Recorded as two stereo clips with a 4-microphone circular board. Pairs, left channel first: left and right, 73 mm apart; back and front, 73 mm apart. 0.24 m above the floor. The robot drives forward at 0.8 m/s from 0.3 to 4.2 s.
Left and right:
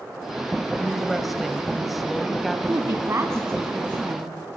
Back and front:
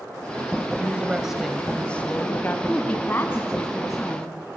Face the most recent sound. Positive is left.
turn(degrees=-145)